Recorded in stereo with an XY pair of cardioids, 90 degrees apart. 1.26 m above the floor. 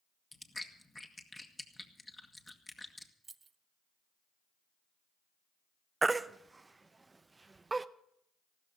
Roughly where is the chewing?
Ahead.